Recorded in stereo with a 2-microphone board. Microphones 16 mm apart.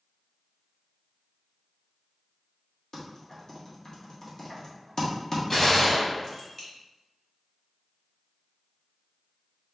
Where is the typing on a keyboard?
40° left (ahead or behind), 1.3 m.